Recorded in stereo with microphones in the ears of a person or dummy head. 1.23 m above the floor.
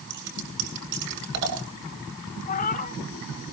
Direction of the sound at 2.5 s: 40° left (ahead or behind).